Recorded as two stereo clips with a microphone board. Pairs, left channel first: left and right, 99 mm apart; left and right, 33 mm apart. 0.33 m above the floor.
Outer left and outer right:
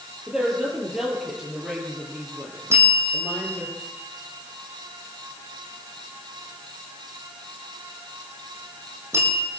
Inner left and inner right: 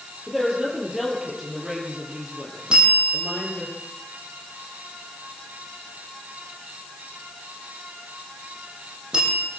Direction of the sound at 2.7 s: 25° right (ahead or behind).